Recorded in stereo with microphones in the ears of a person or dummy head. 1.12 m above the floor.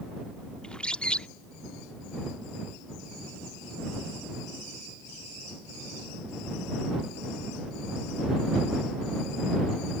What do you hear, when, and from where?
0.6 s a bird: 5° left (ahead or behind)